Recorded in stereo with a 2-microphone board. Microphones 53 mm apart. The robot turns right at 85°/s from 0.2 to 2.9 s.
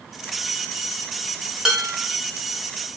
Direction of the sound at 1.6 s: 10° right.